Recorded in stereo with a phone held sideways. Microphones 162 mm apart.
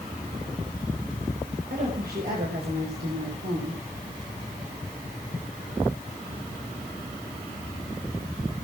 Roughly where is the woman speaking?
Right.